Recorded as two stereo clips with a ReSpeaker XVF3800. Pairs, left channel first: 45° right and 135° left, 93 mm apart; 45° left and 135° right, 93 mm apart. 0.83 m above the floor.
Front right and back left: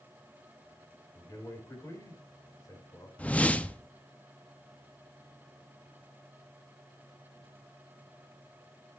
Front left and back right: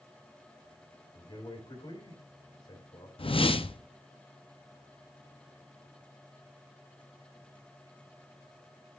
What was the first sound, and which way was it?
A man speaking, 15° left.